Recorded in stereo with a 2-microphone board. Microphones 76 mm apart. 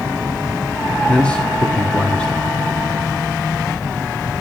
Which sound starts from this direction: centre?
A man speaking, at 1.1 s.